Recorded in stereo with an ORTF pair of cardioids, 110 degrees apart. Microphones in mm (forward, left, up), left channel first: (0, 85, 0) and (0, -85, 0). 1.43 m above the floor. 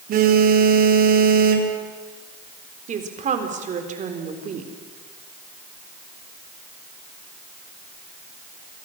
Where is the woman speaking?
45° right, 4 m.